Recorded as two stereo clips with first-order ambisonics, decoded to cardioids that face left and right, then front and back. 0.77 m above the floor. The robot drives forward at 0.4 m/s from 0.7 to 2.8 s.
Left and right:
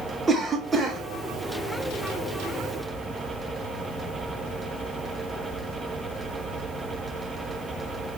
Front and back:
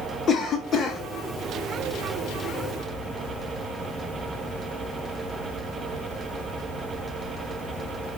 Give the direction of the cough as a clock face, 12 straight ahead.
1 o'clock.